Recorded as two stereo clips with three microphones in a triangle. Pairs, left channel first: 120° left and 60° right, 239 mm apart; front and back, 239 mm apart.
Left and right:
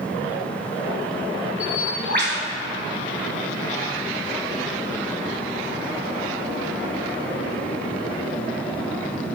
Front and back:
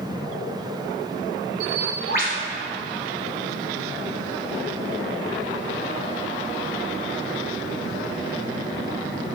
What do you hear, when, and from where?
1.6 s a bird: 40° right, 1.5 m